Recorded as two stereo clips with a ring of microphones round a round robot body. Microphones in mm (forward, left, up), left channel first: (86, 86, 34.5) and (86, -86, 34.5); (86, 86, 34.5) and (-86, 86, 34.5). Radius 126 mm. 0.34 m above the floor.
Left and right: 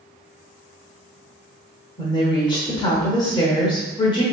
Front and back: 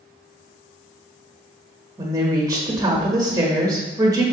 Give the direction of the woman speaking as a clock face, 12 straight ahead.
8 o'clock.